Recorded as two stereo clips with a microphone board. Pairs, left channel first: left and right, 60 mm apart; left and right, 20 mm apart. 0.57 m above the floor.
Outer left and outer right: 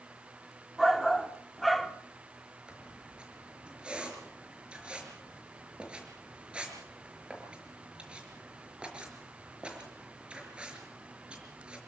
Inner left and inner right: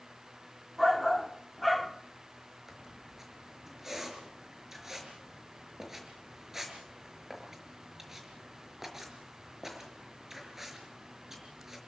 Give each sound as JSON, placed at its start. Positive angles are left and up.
{"t": 0.8, "sound": "a shout", "side_deg": 0, "distance_m": 1.3}
{"t": 2.7, "sound": "a squeak", "side_deg": -15, "distance_m": 5.0}